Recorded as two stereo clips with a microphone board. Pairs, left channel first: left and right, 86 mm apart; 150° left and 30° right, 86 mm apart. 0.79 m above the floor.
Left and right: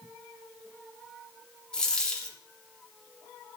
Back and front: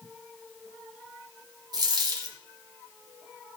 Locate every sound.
1.7 s a dropped coin: 10° left, 1.5 m